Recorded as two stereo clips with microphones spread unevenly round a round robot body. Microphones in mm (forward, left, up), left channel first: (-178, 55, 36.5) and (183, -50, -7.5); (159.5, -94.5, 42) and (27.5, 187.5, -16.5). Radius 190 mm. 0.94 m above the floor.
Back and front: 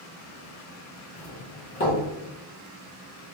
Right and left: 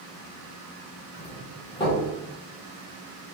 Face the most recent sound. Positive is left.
turn(degrees=-145)